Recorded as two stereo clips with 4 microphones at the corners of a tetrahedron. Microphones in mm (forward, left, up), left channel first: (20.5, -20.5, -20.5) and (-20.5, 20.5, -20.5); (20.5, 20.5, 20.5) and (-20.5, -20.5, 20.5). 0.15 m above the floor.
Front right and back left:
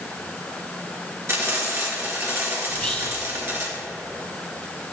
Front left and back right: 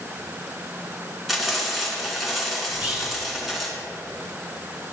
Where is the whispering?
105° right, 1.2 m.